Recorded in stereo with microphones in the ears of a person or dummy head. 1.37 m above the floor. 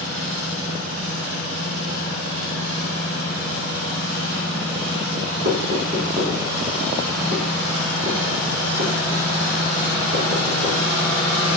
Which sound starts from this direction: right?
Knocking, at 5.5 s.